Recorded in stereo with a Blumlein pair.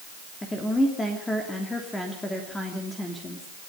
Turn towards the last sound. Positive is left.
turn(degrees=10)